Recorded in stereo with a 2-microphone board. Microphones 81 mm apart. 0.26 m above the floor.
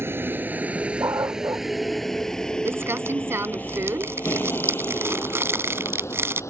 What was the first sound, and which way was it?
A vehicle, 30° right (ahead or behind).